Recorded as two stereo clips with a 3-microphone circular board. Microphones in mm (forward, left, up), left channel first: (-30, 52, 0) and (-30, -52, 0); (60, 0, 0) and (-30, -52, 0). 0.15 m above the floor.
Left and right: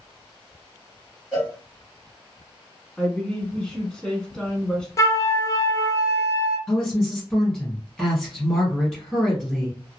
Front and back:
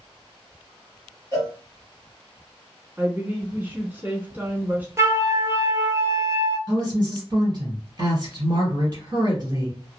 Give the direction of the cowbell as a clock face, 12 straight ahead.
6 o'clock.